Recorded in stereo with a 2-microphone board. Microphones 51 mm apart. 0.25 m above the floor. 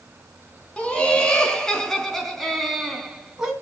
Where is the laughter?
25° left (ahead or behind), 3.5 m; by 3.5 s 10° right (ahead or behind), 2.5 m.